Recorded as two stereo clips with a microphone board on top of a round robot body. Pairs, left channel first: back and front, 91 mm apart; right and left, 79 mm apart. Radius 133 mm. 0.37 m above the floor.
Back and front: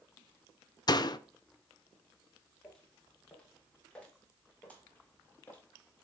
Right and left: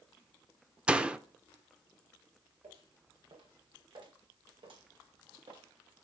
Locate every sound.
0.9 s a door slam: 165° left, 1.0 m
2.6 s footsteps: 100° left, 8.5 m; by 5.6 s 110° left, 5 m